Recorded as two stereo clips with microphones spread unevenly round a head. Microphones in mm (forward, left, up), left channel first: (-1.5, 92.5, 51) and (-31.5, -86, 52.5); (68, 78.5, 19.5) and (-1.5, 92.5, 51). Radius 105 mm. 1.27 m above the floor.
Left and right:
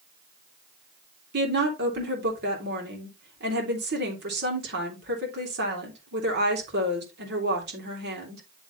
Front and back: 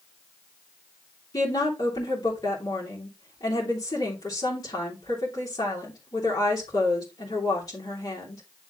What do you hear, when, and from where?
1.3 s a woman speaking: 65° right, 3 m